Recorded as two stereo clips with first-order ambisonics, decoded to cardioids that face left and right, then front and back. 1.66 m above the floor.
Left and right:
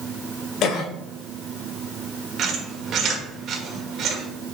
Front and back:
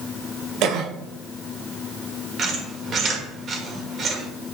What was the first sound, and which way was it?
A cough, 140° left.